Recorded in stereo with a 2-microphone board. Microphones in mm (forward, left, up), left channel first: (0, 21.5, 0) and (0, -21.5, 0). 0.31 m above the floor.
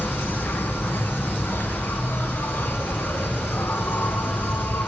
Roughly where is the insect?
Left.